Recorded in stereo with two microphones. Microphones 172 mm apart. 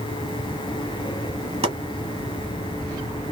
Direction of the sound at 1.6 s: 40° right (ahead or behind).